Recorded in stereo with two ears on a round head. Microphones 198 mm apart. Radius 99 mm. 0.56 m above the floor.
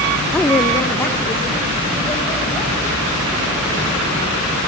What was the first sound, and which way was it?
A woman speaking, 5° left (ahead or behind).